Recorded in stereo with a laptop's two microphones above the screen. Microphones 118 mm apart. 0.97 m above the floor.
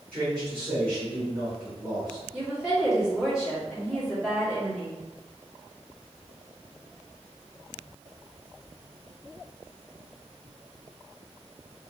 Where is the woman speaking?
5° right (ahead or behind), 1.7 m.